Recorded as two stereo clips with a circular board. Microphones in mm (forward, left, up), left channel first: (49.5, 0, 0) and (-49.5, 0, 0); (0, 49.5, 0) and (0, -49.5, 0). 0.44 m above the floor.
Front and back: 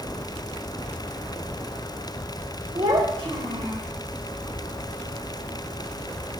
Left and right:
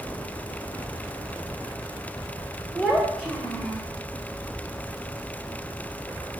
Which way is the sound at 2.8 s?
170° left.